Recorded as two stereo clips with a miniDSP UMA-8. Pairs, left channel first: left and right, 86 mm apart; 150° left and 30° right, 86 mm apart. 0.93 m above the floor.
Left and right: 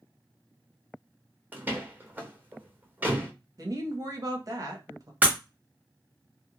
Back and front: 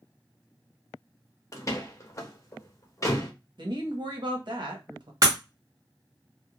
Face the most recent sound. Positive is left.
turn(degrees=-30)